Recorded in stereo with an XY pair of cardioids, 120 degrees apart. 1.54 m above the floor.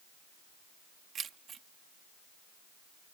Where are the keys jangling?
45° right.